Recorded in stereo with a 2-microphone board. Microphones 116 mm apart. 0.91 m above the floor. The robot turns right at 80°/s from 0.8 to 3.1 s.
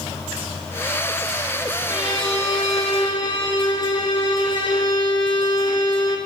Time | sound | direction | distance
1.9 | a violin | 35° left | 2.5 m